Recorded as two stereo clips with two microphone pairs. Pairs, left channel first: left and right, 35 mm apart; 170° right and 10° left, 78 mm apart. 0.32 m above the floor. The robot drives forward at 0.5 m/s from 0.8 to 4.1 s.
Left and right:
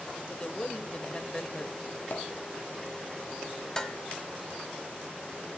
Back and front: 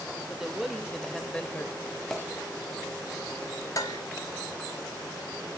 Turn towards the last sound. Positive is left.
turn(degrees=165)